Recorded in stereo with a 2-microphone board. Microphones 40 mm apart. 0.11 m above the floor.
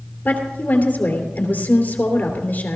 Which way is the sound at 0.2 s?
50° left (ahead or behind).